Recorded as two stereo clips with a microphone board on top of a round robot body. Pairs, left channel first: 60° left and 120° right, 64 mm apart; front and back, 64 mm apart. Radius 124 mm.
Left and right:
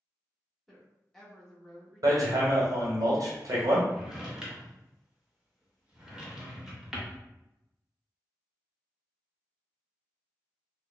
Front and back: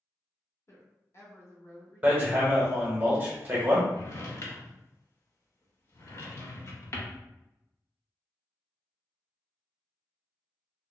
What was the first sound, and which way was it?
A woman speaking, 25° right.